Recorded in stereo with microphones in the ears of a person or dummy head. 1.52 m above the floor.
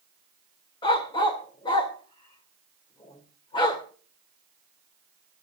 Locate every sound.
0.8 s a dog barking: 25° left (ahead or behind), 1.7 m